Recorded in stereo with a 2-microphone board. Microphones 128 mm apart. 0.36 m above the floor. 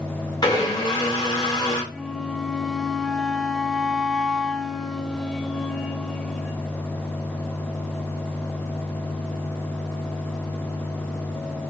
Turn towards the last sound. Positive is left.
turn(degrees=5)  # may be behind; listen again after turning